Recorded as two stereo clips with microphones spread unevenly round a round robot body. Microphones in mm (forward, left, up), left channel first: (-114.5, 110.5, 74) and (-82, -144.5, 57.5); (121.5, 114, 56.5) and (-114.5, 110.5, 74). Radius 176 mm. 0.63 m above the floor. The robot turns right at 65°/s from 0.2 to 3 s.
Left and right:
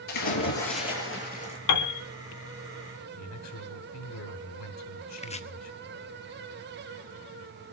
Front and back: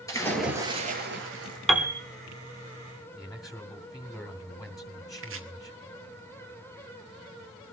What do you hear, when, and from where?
0.1 s a splash: 80° left, 5.5 m; by 1.6 s 170° left, 5.5 m
1.7 s a piano: 90° left, 1.6 m; by 2.0 s 110° left, 1.6 m
3.2 s a man speaking: 90° left, 3 m
5.2 s chopping: 160° left, 1.7 m